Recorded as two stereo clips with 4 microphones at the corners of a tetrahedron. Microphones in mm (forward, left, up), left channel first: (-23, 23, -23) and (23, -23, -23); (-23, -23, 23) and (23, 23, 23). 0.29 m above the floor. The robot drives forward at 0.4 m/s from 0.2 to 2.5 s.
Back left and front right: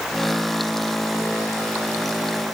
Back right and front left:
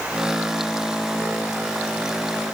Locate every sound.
Only background noise.